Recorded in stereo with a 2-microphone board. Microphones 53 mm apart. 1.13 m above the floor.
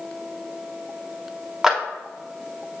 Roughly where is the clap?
Centre.